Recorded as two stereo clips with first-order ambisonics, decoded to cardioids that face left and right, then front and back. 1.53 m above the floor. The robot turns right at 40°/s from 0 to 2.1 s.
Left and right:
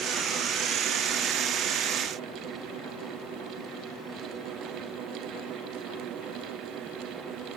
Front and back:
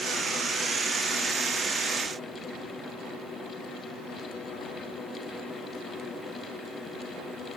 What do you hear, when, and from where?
Only background noise.